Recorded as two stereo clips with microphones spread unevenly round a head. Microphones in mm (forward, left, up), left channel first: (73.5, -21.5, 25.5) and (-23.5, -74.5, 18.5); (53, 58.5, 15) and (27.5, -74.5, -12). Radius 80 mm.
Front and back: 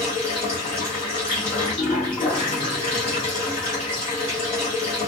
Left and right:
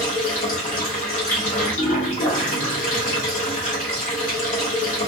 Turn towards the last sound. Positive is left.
turn(degrees=85)